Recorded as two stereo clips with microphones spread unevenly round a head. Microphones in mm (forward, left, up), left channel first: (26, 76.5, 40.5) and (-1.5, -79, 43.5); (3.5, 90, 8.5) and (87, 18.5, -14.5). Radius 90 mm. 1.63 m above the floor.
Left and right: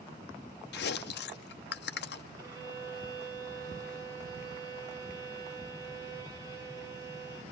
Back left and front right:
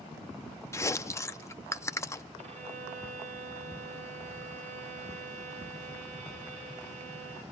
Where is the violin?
35° right, 3.5 m.